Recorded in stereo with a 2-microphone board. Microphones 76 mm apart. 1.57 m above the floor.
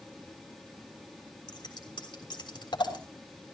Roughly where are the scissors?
Left.